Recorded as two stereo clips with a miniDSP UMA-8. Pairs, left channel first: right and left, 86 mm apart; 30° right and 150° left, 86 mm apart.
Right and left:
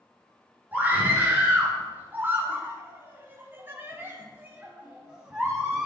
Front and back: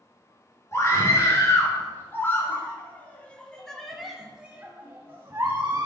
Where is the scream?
25° left, 4 m; by 5.9 s 170° left, 2 m.